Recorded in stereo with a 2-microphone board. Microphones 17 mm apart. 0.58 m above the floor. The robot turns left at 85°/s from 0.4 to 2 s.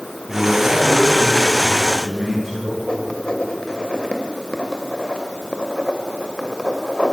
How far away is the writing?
About 2 m.